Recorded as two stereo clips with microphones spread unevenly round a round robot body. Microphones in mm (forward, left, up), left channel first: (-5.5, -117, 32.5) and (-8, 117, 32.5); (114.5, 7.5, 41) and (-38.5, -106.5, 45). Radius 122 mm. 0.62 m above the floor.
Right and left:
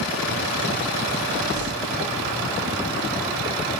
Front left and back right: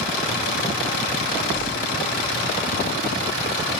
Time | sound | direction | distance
1.6 | crumpling | 80° left | 5.5 m